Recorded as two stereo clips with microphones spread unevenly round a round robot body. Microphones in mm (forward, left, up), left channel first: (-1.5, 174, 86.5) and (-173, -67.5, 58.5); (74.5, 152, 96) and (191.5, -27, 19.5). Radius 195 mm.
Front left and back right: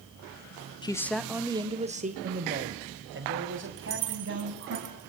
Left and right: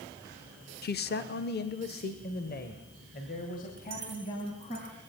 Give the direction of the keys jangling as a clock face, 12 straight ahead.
4 o'clock.